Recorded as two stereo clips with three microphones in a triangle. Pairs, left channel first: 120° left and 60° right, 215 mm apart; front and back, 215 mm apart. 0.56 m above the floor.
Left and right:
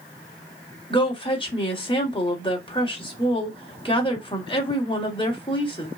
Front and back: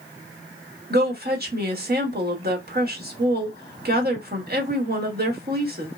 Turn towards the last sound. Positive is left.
turn(degrees=175)